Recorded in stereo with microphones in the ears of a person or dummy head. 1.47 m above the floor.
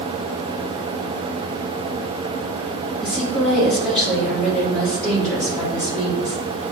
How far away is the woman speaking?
About 3.5 m.